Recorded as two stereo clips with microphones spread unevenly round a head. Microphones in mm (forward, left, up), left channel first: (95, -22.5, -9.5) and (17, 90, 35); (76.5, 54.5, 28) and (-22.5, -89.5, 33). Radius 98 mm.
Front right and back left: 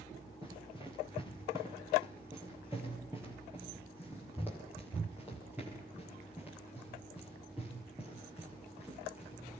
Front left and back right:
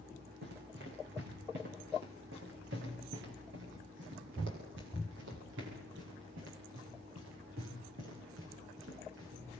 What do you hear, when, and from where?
0.4 s running footsteps: 165° right, 6 m; by 9.6 s 150° right, 10.5 m